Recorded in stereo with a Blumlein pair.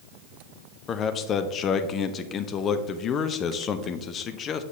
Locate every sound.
0.9 s a man speaking: 25° left, 0.6 m